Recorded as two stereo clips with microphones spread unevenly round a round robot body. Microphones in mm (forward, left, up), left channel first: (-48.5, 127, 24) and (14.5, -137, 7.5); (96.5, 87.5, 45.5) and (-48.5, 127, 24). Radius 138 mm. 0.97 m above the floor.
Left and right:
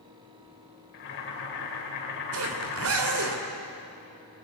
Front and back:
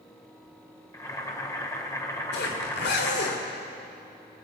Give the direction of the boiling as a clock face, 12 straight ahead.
10 o'clock.